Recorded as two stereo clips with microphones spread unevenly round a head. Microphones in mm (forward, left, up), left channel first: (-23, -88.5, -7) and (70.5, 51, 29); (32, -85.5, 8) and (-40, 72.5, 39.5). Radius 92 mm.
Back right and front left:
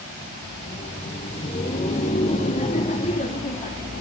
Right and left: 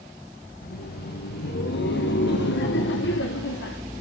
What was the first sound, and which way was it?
Laughter, 80° right.